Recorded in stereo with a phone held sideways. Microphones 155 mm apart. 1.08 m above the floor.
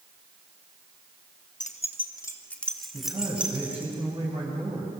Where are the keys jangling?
55° left (ahead or behind), 1.1 m; by 3.9 s 15° right (ahead or behind), 3 m.